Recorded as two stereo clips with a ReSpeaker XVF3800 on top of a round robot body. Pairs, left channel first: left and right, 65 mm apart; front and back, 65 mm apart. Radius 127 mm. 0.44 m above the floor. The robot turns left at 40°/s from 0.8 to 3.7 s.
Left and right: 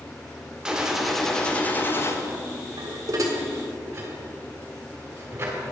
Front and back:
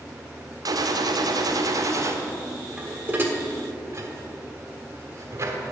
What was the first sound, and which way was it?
A gunshot, 165° right.